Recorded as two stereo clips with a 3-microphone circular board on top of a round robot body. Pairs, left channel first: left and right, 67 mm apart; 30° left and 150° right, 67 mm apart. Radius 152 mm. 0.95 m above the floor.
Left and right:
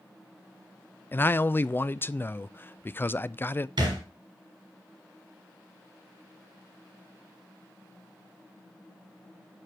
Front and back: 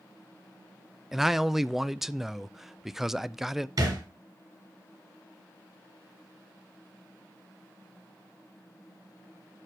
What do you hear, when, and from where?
1.1 s a man speaking: 130° left, 0.5 m
3.8 s a thud: 115° right, 3 m